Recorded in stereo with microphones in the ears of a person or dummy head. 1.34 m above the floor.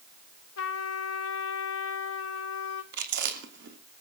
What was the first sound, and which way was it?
A trumpet, 80° left.